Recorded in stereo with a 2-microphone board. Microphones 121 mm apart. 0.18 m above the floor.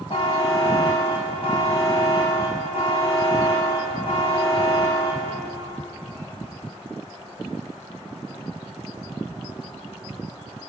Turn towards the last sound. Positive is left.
turn(degrees=50)  # may be behind; listen again after turning